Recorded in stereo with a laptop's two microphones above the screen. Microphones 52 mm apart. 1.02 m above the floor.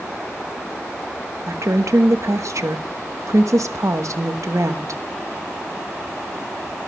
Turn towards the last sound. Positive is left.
turn(degrees=-70)  # may be behind; listen again after turning